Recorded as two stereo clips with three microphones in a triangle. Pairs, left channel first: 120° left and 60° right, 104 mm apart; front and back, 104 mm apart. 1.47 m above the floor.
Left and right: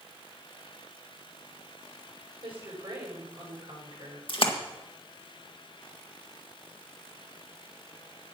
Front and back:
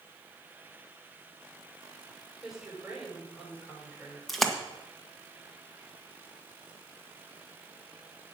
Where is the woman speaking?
95° right, 9 m.